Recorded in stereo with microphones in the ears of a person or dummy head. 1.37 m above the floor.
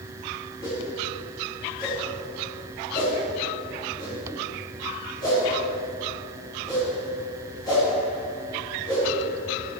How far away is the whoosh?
About 3 m.